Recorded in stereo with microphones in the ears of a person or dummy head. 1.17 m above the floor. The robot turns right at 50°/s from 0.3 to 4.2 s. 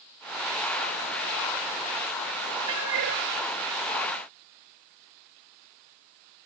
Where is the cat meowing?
75° right (ahead or behind), 4 m; by 3.2 s 65° right (ahead or behind), 4 m.